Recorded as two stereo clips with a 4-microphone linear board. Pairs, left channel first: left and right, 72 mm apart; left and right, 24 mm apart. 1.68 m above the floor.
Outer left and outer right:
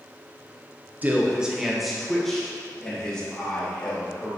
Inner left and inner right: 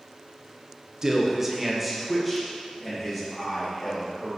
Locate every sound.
1.0 s a man speaking: 25° right (ahead or behind), 1.2 m; by 4.3 s 15° left (ahead or behind), 4.5 m